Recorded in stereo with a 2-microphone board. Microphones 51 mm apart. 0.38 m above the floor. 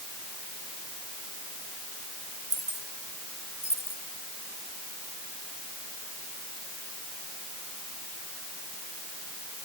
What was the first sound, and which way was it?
Keys jangling, 65° left (ahead or behind).